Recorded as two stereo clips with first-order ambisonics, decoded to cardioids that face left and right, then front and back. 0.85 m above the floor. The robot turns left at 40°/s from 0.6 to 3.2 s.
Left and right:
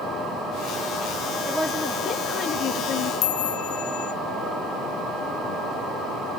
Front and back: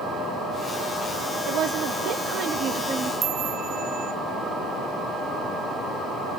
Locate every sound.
1.5 s a woman speaking: 175° left, 1.1 m; by 3.1 s 110° left, 1.1 m
3.2 s a chime: 115° left, 0.7 m